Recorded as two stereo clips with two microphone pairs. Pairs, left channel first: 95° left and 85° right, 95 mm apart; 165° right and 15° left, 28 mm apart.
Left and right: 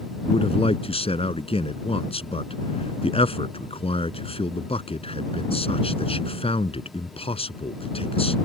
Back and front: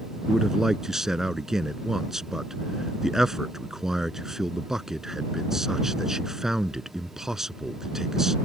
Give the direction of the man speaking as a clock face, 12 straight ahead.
9 o'clock.